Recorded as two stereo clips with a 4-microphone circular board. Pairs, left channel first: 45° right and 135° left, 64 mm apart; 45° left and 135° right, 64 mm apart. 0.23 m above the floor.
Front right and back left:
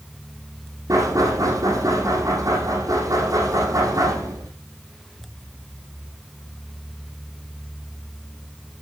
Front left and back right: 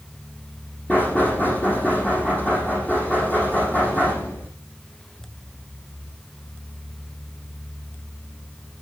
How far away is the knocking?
About 6 m.